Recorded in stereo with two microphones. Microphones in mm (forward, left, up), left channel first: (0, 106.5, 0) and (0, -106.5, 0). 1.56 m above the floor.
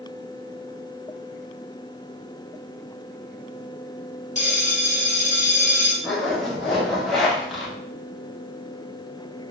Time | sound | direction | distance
4.3 | a bell | 35° left (ahead or behind) | 0.9 m
6.0 | a zipper | centre (ahead or behind) | 1.0 m